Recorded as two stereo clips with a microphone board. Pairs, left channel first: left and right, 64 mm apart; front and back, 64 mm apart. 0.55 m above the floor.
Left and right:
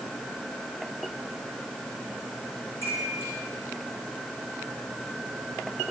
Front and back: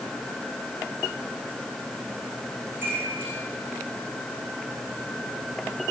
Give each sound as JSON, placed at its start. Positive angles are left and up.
{"t": 2.8, "sound": "a chime", "azimuth_deg": 125, "distance_m": 7.0}